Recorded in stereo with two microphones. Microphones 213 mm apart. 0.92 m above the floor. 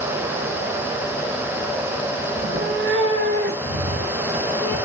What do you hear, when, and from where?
2.4 s a cat meowing: 35° right (ahead or behind), 0.5 m; by 4.8 s 80° right, 3 m